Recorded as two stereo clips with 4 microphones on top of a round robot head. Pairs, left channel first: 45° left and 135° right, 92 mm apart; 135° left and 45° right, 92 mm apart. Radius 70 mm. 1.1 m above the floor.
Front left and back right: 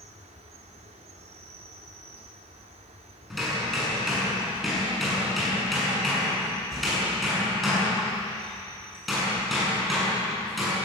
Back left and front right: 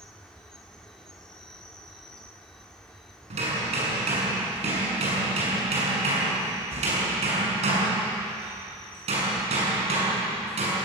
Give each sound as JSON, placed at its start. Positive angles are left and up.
{"t": 0.0, "sound": "an insect", "azimuth_deg": -140, "distance_m": 2.0}
{"t": 3.3, "sound": "hammering", "azimuth_deg": -45, "distance_m": 7.0}